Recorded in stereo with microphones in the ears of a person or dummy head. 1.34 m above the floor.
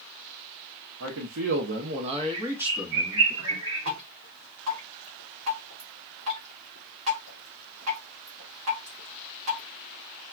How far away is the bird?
About 1.2 m.